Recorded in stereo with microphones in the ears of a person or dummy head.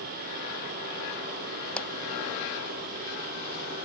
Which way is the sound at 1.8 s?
15° left (ahead or behind).